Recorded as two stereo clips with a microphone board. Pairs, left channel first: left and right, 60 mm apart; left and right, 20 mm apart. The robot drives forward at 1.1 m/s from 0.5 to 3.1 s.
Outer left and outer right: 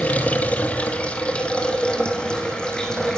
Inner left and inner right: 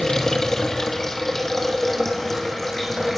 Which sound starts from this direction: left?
Running water, at 0.0 s.